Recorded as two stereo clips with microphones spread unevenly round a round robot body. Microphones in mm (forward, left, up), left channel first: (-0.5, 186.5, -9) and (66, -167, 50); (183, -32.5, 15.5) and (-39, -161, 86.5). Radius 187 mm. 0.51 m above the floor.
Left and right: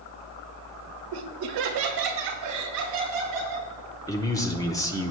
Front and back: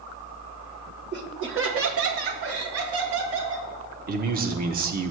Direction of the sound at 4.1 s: 155° left.